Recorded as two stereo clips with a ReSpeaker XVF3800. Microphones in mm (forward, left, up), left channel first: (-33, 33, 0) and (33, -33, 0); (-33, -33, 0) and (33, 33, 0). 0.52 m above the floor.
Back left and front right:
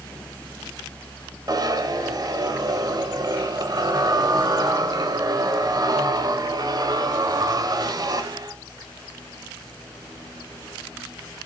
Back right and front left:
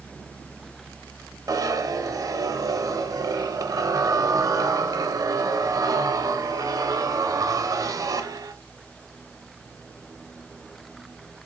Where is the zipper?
Straight ahead, 0.5 m.